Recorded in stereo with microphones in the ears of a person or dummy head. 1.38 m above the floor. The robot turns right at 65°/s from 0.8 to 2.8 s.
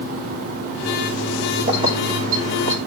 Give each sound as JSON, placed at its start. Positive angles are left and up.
{"t": 1.7, "sound": "keys jangling", "side_deg": -25, "distance_m": 3.0}